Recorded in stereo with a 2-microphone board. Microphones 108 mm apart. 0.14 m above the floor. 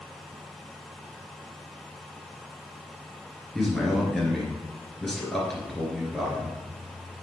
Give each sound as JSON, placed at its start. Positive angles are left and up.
{"t": 3.5, "sound": "a man speaking", "side_deg": 5, "distance_m": 2.0}